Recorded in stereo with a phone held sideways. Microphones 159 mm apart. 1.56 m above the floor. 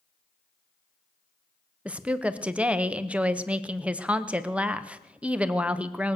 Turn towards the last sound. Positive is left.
turn(degrees=-10)  # may be behind; listen again after turning